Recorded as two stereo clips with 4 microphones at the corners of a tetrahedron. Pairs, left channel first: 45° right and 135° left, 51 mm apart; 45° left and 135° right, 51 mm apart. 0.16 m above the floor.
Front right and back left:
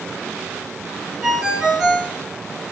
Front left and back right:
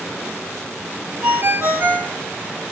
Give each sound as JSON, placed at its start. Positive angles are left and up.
{"t": 1.2, "sound": "a ringtone", "azimuth_deg": -140, "distance_m": 0.7}